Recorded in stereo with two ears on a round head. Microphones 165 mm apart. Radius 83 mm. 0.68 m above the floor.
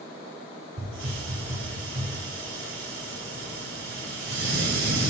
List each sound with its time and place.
0.8 s a hiss: 80° right, 3 m